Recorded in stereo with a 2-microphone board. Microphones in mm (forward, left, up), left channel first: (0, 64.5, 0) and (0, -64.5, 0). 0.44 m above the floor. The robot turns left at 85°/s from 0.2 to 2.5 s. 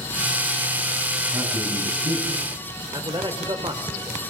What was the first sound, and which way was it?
A man speaking, 25° right.